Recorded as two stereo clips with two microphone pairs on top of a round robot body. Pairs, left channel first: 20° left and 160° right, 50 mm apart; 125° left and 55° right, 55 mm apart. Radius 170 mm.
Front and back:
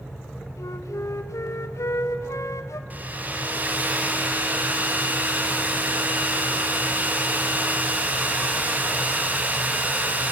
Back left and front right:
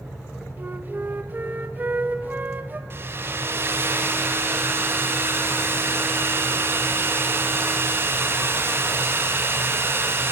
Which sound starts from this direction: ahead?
A flute, at 0.6 s.